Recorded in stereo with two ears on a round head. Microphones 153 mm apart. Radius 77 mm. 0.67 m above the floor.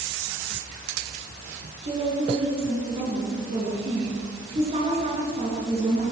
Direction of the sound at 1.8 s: 35° right (ahead or behind).